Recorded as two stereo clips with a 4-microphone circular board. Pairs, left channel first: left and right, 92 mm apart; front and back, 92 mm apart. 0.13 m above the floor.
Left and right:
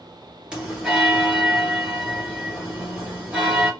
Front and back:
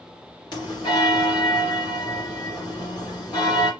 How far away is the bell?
About 2.5 m.